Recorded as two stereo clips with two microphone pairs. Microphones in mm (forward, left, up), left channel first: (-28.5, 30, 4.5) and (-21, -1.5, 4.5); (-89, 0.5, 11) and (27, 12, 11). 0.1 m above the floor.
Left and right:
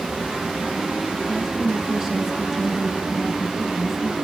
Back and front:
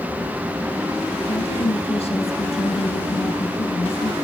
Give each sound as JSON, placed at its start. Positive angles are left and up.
{"t": 1.2, "sound": "a woman speaking", "azimuth_deg": -150, "distance_m": 3.5}